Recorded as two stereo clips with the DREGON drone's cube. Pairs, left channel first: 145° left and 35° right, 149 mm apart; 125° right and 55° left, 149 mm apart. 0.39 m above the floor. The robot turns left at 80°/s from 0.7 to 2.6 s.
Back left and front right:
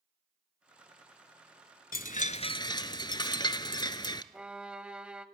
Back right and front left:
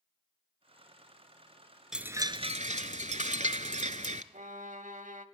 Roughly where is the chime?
Behind left.